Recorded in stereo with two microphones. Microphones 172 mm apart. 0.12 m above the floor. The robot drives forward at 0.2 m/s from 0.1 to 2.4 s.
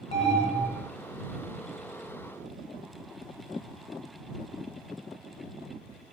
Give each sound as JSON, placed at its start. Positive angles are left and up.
{"t": 0.1, "sound": "an alarm", "side_deg": 35, "distance_m": 0.8}